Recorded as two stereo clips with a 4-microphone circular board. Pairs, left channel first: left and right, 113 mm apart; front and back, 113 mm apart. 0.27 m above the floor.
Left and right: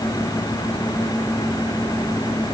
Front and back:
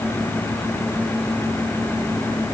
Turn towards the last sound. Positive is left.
No sound to turn to.